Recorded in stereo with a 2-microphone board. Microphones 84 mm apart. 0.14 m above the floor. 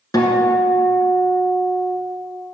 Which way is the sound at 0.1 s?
45° left (ahead or behind).